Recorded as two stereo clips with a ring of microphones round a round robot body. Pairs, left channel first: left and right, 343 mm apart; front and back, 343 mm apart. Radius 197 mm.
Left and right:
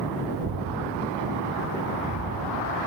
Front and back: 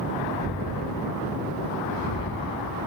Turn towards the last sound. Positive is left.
turn(degrees=-55)